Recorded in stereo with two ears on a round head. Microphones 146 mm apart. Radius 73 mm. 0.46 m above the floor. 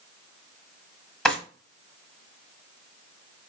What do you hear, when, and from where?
1.2 s a drawer: 5° left (ahead or behind), 1.4 m